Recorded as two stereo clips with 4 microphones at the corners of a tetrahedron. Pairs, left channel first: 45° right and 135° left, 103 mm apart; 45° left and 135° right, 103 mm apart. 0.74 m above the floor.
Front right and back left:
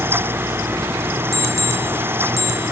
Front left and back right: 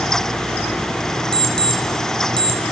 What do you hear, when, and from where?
1.3 s an alarm clock: 165° right, 1.9 m